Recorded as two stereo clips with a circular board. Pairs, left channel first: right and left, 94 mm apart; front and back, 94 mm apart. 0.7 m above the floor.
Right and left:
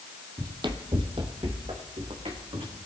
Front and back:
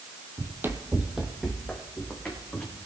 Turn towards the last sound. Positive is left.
turn(degrees=75)